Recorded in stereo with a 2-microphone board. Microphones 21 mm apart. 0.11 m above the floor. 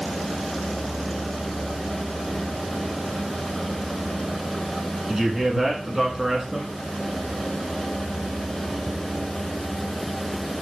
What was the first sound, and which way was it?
A man speaking, 20° right (ahead or behind).